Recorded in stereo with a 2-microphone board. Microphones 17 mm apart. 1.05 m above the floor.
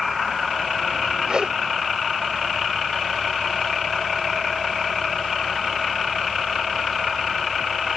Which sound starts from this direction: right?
A whoosh, at 1.3 s.